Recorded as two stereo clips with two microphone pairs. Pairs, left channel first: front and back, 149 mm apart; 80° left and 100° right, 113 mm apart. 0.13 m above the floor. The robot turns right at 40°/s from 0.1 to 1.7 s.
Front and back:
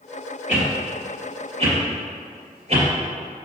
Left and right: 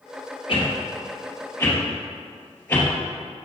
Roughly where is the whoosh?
Left.